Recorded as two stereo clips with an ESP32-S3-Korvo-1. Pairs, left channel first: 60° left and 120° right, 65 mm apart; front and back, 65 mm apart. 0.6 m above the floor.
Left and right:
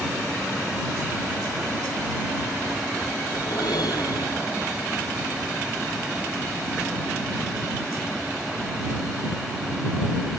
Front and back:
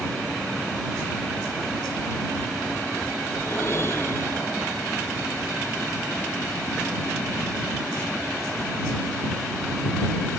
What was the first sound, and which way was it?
A whoosh, 50° left.